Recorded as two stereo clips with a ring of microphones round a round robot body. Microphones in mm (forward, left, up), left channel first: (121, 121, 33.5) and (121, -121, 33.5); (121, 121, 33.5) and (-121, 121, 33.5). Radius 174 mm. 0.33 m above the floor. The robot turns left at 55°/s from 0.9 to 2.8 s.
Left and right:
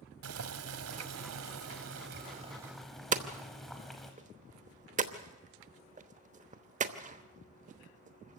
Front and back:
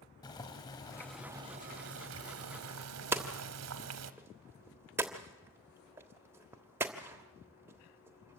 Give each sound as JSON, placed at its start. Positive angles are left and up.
{"t": 0.2, "sound": "boiling", "azimuth_deg": -75, "distance_m": 0.9}
{"t": 3.1, "sound": "hammering", "azimuth_deg": -110, "distance_m": 1.0}